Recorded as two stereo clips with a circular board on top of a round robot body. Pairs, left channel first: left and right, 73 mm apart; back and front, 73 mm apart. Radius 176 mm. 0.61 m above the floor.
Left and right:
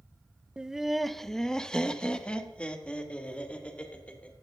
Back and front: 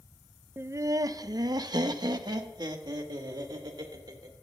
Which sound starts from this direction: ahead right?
Laughter, at 0.6 s.